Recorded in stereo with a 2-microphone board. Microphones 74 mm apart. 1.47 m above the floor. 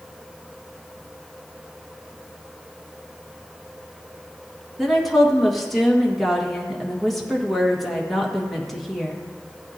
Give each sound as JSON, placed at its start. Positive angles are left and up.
{"t": 4.8, "sound": "a woman speaking", "side_deg": 0, "distance_m": 1.9}